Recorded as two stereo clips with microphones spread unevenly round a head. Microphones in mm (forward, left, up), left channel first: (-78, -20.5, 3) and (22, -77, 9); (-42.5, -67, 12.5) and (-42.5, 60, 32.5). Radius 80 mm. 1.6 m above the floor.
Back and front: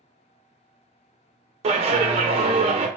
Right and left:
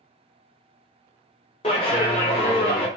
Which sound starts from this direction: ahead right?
A clap, at 1.6 s.